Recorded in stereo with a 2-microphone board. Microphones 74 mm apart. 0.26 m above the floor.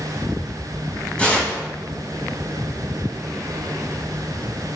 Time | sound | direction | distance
1.2 | tearing paper | 15° left (ahead or behind) | 1.2 m